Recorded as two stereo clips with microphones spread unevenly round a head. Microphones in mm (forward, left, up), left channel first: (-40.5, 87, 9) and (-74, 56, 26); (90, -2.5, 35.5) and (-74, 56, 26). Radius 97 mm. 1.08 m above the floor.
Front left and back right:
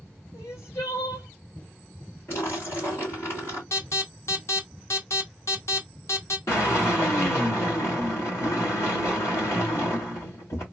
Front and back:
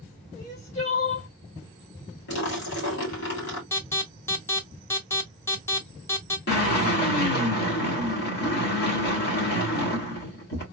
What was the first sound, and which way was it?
Crying, 30° left.